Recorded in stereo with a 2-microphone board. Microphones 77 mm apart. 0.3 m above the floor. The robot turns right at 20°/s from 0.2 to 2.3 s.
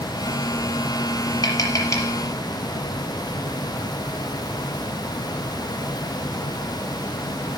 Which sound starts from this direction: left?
Tapping, at 1.4 s.